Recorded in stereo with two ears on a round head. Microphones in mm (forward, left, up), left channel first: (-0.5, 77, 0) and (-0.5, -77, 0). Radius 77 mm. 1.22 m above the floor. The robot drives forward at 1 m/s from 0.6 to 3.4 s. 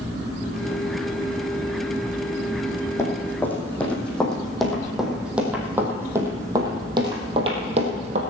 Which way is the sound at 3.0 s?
15° left (ahead or behind).